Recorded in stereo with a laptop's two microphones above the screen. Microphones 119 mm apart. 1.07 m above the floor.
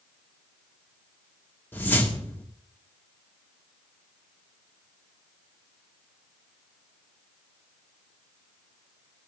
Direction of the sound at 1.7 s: 20° left (ahead or behind).